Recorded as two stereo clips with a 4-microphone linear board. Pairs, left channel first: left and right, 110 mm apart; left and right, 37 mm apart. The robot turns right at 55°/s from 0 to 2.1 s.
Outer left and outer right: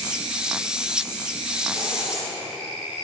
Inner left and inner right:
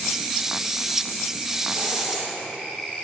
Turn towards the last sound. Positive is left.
turn(degrees=-5)  # may be behind; listen again after turning